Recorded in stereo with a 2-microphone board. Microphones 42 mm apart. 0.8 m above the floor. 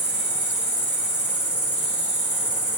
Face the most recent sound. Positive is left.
turn(degrees=-35)  # may be behind; listen again after turning